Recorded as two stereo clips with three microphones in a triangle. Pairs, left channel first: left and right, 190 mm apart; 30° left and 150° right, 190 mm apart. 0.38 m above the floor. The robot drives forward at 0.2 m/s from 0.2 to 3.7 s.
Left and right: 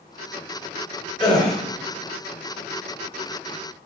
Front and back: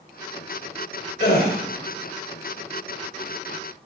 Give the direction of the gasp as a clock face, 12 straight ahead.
11 o'clock.